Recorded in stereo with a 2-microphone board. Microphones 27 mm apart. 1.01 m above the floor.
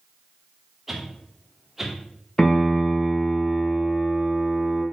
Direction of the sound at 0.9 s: 5° right (ahead or behind).